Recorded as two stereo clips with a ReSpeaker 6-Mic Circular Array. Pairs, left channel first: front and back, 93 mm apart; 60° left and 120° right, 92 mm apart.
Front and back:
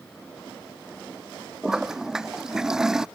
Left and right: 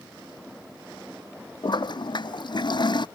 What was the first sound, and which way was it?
A toilet flushing, 95° left.